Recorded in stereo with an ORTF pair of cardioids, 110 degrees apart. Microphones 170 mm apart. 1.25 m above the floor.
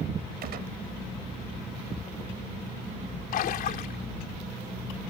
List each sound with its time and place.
0.4 s a gunshot: 65° right
3.3 s a splash: 60° left